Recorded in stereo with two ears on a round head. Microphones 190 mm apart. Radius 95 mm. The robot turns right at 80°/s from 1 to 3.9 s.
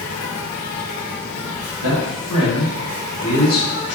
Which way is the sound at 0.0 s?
90° left.